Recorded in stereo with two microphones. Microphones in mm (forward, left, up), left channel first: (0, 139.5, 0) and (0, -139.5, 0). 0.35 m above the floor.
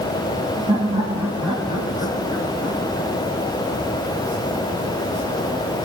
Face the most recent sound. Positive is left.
turn(degrees=35)  # may be behind; listen again after turning